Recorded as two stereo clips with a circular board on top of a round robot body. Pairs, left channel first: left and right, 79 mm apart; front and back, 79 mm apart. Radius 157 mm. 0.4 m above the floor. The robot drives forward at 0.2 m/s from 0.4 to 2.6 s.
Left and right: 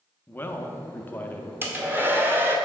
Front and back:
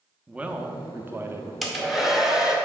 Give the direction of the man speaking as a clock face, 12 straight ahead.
8 o'clock.